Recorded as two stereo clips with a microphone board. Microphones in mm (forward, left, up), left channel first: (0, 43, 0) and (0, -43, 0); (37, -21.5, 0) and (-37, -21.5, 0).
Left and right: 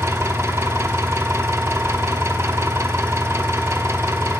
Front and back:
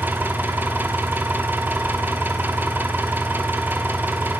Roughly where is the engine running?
Behind right.